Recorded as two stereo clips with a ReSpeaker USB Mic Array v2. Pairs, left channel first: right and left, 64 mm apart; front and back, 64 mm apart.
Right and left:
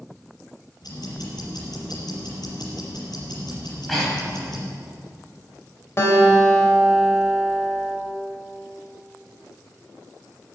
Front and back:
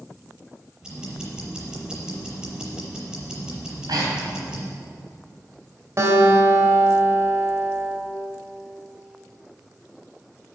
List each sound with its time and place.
0.8 s ticking: 105° right, 5.5 m
3.6 s breathing: 175° right, 3.5 m
6.0 s a guitar: 135° right, 3 m